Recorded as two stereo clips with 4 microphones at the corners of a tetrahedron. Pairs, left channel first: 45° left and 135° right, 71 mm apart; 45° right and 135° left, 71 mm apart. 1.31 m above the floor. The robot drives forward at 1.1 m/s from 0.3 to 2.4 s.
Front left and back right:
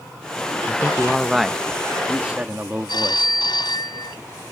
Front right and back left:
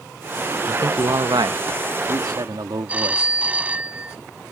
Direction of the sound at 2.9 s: 65° left.